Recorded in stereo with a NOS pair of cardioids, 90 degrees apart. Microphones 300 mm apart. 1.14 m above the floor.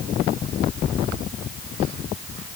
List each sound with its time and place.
Only background noise.